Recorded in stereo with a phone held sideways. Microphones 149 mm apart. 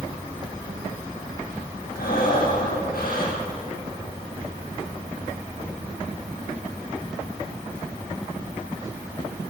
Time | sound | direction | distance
2.0 | breathing | 80° left | 8 m